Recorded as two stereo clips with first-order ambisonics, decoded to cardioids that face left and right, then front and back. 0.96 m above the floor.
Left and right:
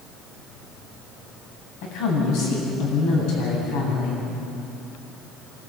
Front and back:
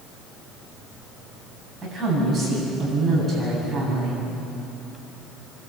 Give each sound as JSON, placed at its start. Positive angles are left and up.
{"t": 1.8, "sound": "a woman speaking", "azimuth_deg": 100, "distance_m": 7.5}